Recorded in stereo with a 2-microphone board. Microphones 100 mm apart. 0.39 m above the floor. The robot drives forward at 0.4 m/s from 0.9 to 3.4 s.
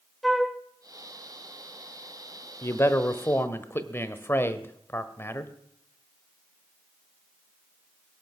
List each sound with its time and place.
0.2 s a flute: centre (ahead or behind), 1.1 m
2.6 s a man speaking: 30° left (ahead or behind), 1.1 m; by 5.5 s 25° left (ahead or behind), 1.3 m